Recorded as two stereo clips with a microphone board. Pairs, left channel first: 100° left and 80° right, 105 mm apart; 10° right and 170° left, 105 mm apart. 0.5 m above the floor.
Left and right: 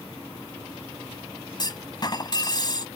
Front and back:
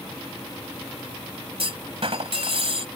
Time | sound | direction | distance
1.6 | a clunk | 145° left | ?